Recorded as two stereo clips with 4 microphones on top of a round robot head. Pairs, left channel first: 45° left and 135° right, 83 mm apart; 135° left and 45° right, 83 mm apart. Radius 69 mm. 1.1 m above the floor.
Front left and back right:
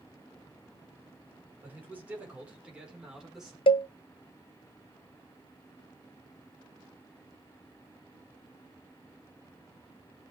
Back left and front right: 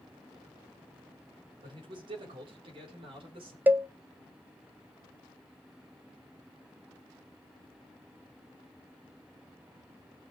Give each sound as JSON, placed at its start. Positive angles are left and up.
{"t": 1.6, "sound": "a man speaking", "azimuth_deg": -70, "distance_m": 4.5}
{"t": 3.7, "sound": "a cowbell", "azimuth_deg": 30, "distance_m": 0.6}